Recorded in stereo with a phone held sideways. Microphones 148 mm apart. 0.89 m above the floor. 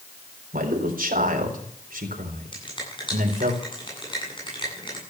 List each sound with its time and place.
0.5 s a man speaking: 75° right (ahead or behind), 4 m
2.5 s a finger snap: 35° left (ahead or behind), 8.5 m